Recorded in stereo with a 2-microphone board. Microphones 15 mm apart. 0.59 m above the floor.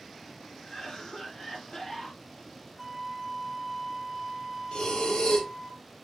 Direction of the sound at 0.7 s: 50° left (ahead or behind).